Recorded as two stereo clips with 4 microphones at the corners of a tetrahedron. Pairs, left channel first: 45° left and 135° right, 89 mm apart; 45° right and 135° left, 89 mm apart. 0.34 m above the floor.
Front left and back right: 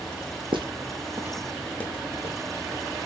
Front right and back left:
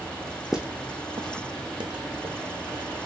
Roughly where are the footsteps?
Behind right.